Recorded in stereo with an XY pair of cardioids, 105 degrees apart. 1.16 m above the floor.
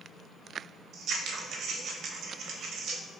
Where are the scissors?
65° right, 0.6 m.